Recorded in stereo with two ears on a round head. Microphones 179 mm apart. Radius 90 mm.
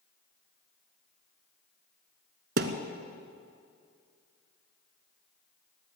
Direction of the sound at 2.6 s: 50° right (ahead or behind).